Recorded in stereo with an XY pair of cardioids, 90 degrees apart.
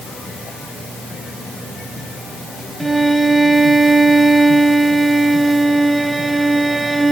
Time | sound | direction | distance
2.8 | a violin | 20° right | 1.9 m